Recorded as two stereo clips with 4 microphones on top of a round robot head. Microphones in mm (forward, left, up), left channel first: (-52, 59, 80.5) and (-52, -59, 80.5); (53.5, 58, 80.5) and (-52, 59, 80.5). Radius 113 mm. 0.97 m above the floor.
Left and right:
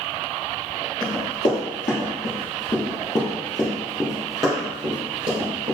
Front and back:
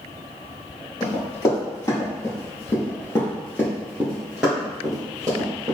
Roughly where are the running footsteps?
Ahead left.